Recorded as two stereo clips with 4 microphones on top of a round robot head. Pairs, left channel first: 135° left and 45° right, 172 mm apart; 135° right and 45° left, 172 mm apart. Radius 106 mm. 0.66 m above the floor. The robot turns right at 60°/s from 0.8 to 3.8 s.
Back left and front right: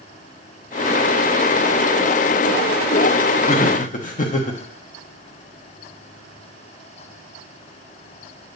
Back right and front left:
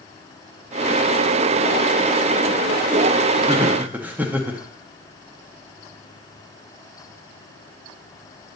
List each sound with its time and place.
3.5 s laughter: 105° left, 0.9 m; by 4.6 s 125° left, 0.9 m